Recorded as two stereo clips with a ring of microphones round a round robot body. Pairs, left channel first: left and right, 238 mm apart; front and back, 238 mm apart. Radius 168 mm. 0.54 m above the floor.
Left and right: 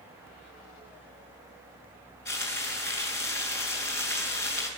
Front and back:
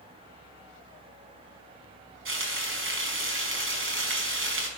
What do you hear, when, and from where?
2.2 s frying: 150° left, 5 m